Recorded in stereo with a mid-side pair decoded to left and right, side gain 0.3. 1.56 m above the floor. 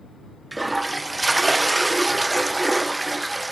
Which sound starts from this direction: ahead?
A toilet flushing, at 0.5 s.